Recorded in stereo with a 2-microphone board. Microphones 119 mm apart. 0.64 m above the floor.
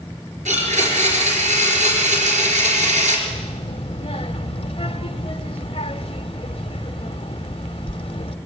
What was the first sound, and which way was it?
A blender, 75° right (ahead or behind).